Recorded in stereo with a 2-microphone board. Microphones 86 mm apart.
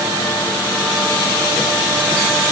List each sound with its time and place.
Only background noise.